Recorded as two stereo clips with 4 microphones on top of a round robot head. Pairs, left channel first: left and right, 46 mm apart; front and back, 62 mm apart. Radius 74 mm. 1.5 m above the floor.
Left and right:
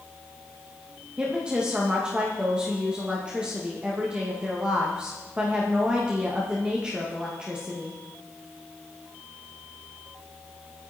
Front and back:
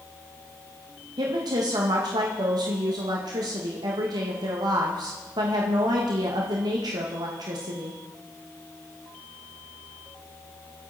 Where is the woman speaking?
165° right, 2 m.